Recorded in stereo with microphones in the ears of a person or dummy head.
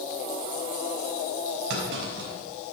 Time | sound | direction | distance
1.7 | a clunk | 60° right (ahead or behind) | 5.5 m